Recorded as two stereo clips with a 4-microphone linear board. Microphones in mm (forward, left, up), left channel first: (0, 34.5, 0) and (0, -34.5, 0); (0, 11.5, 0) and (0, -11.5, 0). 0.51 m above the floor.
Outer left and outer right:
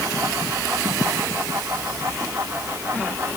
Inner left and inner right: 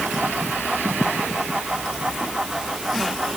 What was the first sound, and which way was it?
Only background noise.